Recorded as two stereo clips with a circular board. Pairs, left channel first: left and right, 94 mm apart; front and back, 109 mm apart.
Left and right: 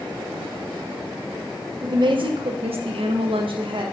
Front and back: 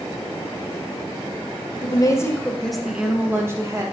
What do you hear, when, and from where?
1.8 s a woman speaking: 45° right, 0.9 m; by 3.8 s 120° right, 1.4 m